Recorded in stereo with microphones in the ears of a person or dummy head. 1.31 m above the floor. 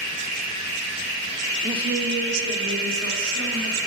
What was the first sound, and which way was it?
A woman speaking, 10° right (ahead or behind).